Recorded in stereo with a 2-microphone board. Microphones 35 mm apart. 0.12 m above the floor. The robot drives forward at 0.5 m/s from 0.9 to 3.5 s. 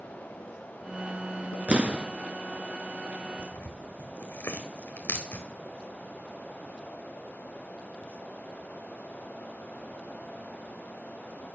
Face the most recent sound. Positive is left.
turn(degrees=85)